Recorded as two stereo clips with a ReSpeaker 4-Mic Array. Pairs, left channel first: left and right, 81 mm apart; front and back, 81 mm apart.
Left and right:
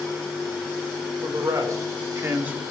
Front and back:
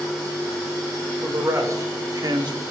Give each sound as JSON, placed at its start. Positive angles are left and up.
{"t": 1.2, "sound": "a man speaking", "azimuth_deg": -125, "distance_m": 2.5}